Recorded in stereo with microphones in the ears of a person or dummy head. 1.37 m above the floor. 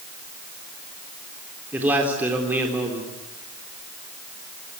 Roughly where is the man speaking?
Centre.